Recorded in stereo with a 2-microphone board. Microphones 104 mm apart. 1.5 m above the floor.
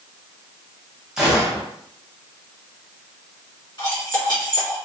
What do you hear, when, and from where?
1.2 s a gunshot: 5° right (ahead or behind), 1.3 m
3.8 s cutlery clinking: 40° left (ahead or behind), 1.7 m